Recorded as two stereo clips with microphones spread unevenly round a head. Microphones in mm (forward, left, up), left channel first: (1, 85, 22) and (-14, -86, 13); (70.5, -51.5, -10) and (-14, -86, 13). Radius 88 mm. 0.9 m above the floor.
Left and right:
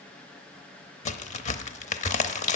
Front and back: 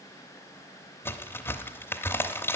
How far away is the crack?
About 0.8 m.